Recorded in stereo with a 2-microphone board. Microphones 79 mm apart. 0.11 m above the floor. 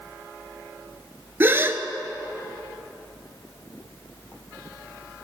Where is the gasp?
30° right (ahead or behind), 0.5 m.